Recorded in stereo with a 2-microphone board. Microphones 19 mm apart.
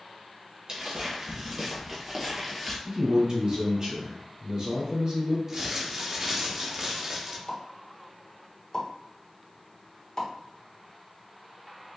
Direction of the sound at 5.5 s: 30° right (ahead or behind).